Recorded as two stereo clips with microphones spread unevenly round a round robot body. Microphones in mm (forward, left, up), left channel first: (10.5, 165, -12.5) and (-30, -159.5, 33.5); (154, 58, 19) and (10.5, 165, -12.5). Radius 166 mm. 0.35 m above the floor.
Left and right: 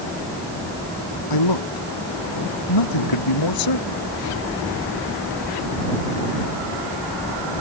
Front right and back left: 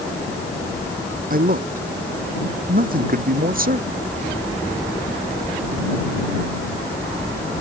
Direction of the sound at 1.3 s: 105° left.